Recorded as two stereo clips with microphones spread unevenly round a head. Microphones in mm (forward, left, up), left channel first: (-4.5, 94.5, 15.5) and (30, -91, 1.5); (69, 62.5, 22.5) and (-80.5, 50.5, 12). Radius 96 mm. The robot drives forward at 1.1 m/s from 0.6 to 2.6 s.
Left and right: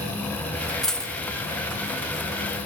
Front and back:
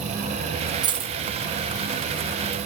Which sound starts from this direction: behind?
A dropped coin, at 0.8 s.